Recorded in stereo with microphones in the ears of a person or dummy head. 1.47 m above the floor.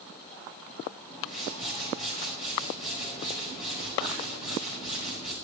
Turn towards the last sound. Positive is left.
turn(degrees=40)  # may be behind; listen again after turning